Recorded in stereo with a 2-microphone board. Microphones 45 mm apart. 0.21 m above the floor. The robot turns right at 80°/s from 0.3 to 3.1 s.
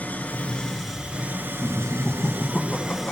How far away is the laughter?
About 2.0 m.